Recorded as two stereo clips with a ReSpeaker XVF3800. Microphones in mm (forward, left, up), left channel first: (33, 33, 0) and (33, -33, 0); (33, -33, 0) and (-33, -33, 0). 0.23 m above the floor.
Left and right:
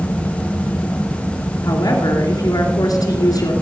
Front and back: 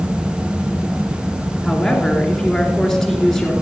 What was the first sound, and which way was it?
A woman speaking, 85° left.